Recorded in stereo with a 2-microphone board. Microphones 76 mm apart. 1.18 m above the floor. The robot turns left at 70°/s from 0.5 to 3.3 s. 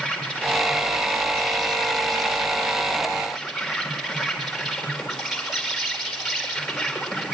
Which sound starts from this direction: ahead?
An insect, at 0.0 s.